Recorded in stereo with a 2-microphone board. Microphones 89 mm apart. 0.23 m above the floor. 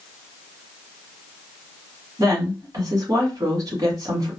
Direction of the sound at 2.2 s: 45° right (ahead or behind).